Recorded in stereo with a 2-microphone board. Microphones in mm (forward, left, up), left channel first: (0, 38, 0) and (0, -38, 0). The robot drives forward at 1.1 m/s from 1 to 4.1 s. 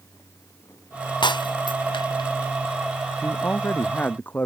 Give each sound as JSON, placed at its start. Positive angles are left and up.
{"t": 1.2, "sound": "breaking glass", "side_deg": 85}
{"t": 3.2, "sound": "a man speaking", "side_deg": 30}